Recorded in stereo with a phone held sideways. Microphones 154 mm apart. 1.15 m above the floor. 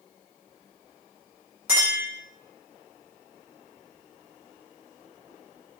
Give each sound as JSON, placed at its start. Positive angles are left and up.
{"t": 1.7, "sound": "a clink", "side_deg": -10, "distance_m": 1.9}